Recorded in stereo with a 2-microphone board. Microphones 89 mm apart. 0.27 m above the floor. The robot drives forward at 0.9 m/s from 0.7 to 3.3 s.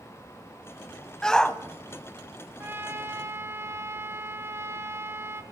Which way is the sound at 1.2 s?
10° left (ahead or behind).